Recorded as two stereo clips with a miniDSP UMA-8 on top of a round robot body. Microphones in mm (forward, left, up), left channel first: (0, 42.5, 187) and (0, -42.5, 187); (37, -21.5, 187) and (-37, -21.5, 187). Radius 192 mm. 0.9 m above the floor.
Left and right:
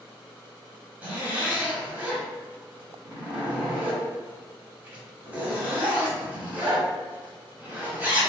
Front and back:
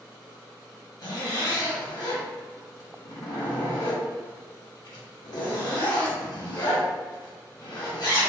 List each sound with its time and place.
1.0 s a zipper: 20° right, 1.9 m